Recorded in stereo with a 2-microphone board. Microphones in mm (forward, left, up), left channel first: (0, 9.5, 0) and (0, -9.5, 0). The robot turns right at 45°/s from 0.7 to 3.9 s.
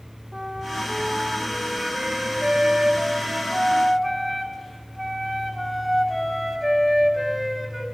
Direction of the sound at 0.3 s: 165° right.